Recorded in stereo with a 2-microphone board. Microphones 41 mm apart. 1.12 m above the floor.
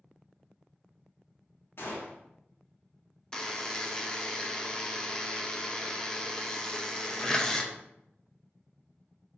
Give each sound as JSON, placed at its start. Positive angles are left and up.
{"t": 1.8, "sound": "a gunshot", "side_deg": 60, "distance_m": 1.3}
{"t": 3.3, "sound": "a buzzer", "side_deg": 15, "distance_m": 0.6}